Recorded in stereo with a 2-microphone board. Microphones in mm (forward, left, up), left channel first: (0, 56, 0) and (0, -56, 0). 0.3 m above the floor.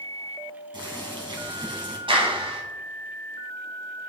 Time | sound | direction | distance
0.7 | boiling | 45° right (ahead or behind) | 3 m
2.1 | a clap | 50° right (ahead or behind) | 2.5 m